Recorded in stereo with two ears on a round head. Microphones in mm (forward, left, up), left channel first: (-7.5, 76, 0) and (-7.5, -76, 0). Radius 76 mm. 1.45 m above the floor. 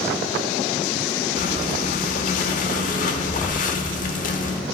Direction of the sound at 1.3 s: 50° left (ahead or behind).